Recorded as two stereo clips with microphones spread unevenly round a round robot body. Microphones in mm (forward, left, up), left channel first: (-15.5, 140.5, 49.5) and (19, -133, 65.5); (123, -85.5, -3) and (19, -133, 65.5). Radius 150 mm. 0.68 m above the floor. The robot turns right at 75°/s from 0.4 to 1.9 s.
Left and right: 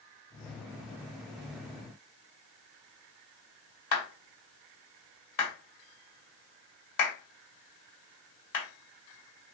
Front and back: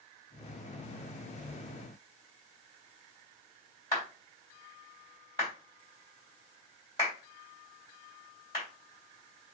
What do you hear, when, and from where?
3.9 s a clap: 85° left, 2.5 m